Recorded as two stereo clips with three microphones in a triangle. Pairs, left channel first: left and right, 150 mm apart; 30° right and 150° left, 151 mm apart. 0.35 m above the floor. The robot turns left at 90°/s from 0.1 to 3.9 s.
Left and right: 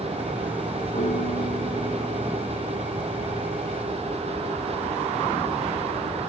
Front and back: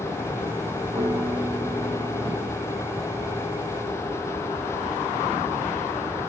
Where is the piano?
100° left, 2 m; by 2.6 s 50° right, 2 m.